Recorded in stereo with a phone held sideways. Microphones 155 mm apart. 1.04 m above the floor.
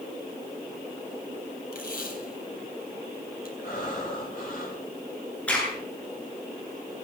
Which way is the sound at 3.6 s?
65° left (ahead or behind).